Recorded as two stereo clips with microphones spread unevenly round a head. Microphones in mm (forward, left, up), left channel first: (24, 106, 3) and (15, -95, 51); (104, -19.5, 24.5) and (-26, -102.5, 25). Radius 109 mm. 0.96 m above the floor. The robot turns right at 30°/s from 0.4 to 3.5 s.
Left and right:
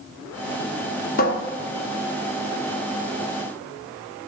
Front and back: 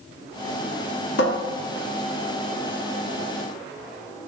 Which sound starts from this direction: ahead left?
A cupboard door, at 1.2 s.